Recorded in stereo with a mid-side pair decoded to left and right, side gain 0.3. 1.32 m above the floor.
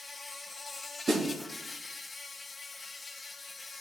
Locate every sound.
0.0 s an insect: 40° left, 0.8 m
1.1 s a snare drum: 70° right, 4 m